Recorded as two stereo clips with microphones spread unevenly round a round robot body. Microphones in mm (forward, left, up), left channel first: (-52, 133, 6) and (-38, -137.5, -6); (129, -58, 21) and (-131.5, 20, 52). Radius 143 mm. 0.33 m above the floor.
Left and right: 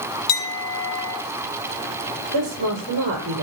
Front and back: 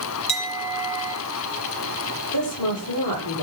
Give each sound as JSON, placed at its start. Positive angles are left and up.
{"t": 0.3, "sound": "a clink", "azimuth_deg": 50, "distance_m": 5.5}
{"t": 2.3, "sound": "a woman speaking", "azimuth_deg": -35, "distance_m": 9.0}